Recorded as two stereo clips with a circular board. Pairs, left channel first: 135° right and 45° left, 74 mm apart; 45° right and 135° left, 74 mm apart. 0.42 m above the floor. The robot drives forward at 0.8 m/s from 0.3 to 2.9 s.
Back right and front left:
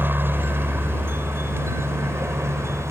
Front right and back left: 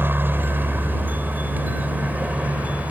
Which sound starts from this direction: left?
A helicopter, at 0.0 s.